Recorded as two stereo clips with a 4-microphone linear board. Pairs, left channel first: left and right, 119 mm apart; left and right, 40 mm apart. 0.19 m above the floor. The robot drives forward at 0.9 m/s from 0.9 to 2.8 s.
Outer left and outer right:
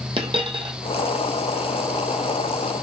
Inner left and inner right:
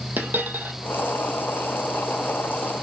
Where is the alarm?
No alarm in this recording.